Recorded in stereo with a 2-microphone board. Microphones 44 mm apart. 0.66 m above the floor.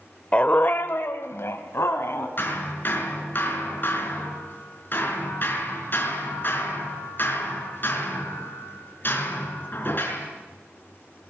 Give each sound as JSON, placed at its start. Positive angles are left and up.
{"t": 0.3, "sound": "a dog barking", "side_deg": 30, "distance_m": 0.8}
{"t": 2.4, "sound": "hammering", "side_deg": 50, "distance_m": 4.0}